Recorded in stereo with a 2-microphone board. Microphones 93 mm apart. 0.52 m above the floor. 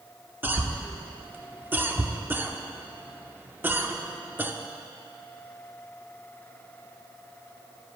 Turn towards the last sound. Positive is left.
turn(degrees=-20)  # may be behind; listen again after turning